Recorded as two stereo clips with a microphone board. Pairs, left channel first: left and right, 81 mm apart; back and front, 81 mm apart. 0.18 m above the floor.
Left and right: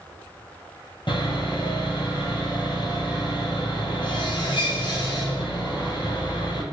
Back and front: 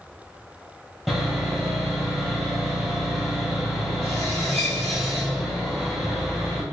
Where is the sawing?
95° left, 1.2 m.